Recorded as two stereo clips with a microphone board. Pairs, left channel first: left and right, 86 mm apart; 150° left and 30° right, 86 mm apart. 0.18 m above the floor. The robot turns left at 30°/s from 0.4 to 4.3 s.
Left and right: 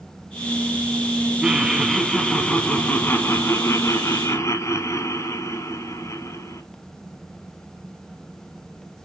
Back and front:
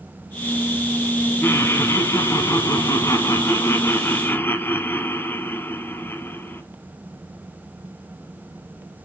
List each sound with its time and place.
1.4 s laughter: 170° right, 1.2 m; by 6.6 s 105° left, 1.2 m